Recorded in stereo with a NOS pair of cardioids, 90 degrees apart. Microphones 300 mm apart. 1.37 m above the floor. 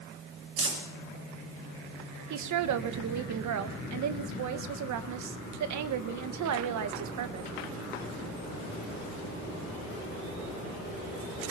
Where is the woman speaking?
65° right, 1.5 m.